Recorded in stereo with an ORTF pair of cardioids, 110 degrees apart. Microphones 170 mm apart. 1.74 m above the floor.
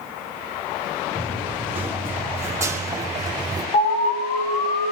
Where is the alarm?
55° left, 6 m.